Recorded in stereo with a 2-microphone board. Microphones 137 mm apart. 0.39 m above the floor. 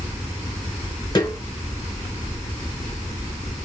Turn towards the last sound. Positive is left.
turn(degrees=30)  # may be behind; listen again after turning